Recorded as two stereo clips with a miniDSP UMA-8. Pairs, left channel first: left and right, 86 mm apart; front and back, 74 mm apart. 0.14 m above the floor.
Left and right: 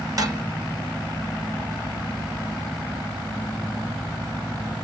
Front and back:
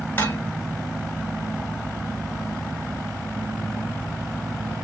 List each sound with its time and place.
0.2 s dishes clattering: 55° right, 1.4 m